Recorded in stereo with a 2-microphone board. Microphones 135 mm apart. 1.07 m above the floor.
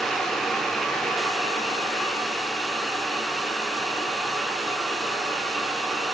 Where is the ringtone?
No ringtone in this recording.